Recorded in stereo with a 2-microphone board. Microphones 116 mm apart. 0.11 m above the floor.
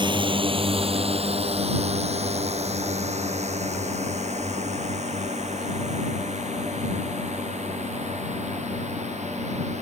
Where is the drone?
45° right (ahead or behind); by 9.8 s 85° right.